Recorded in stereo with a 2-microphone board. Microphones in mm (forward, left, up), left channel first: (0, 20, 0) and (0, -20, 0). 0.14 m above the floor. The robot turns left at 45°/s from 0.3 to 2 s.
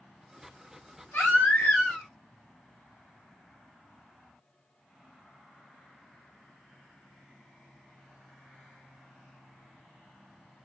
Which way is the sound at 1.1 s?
70° left.